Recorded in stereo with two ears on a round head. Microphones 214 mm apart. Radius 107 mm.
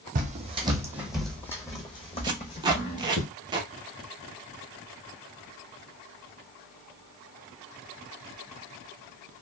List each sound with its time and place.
0.1 s footsteps: 35° right (ahead or behind), 0.9 m; by 3.2 s 40° left (ahead or behind), 1.7 m
2.2 s tape being pulled: 20° right (ahead or behind), 0.5 m